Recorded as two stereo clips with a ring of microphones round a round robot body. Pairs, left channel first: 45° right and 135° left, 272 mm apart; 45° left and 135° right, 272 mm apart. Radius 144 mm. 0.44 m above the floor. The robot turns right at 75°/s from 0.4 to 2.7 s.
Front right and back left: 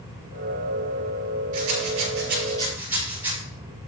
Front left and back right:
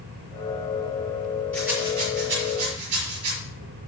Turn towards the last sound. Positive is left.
turn(degrees=-145)